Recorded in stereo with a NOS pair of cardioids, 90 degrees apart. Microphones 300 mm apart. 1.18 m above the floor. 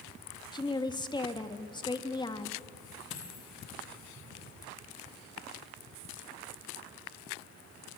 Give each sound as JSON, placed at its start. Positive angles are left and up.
{"t": 0.5, "sound": "a woman speaking", "azimuth_deg": 15, "distance_m": 2.0}
{"t": 3.1, "sound": "a dropped coin", "azimuth_deg": 40, "distance_m": 7.5}